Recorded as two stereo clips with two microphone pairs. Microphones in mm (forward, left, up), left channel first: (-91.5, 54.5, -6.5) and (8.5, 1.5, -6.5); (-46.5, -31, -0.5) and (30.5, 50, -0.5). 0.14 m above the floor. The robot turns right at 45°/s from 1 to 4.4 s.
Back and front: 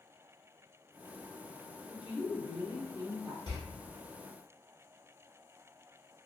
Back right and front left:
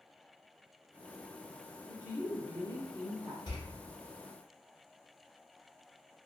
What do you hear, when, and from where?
1.9 s a woman speaking: 5° left, 1.4 m; by 3.4 s 75° left, 1.4 m
3.5 s a door slam: 175° right, 1.3 m; by 3.6 s 165° right, 1.3 m